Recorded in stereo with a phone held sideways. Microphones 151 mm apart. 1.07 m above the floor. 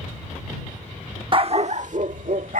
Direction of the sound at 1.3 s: 35° right (ahead or behind).